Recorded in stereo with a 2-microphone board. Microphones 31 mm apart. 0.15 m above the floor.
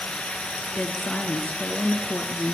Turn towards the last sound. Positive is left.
turn(degrees=50)  # may be behind; listen again after turning